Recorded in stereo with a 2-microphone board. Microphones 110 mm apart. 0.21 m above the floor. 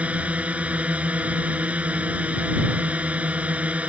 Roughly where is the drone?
Centre.